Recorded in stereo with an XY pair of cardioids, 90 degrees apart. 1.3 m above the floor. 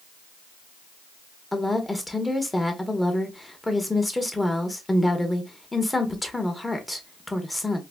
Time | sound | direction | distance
1.5 | a woman speaking | 15° left | 1.2 m